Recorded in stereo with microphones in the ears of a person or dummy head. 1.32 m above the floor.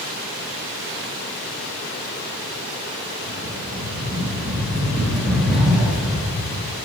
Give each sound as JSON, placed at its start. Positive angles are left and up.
{"t": 3.2, "sound": "a rattle", "side_deg": 0, "distance_m": 1.6}